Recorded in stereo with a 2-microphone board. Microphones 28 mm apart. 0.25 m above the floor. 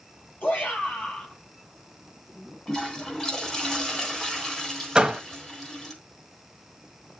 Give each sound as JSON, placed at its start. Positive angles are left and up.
{"t": 0.4, "sound": "a shout", "side_deg": 75, "distance_m": 7.0}
{"t": 2.7, "sound": "a toilet flushing", "side_deg": 20, "distance_m": 3.5}
{"t": 5.0, "sound": "a door slam", "side_deg": -25, "distance_m": 1.0}